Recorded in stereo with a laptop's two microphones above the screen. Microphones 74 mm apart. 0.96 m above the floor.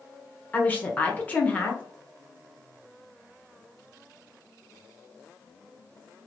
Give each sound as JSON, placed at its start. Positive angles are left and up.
{"t": 0.5, "sound": "a woman speaking", "side_deg": 20, "distance_m": 0.8}